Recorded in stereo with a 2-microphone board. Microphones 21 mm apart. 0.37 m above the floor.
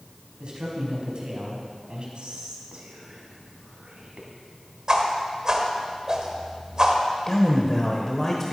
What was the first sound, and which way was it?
A man speaking, 50° right (ahead or behind).